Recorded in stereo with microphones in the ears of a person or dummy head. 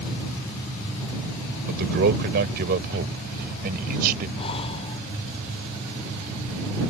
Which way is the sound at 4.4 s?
30° left (ahead or behind).